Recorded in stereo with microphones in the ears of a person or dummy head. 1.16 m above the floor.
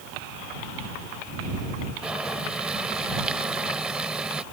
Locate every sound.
2.0 s boiling: 5° right (ahead or behind)